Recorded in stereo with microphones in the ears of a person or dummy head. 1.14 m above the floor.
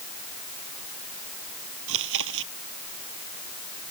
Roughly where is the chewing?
Right.